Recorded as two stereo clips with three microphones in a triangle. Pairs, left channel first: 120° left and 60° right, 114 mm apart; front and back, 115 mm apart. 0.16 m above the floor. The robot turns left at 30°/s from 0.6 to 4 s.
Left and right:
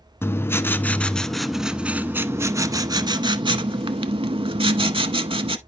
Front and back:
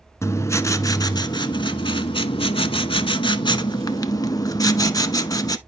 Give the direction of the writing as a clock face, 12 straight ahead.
10 o'clock.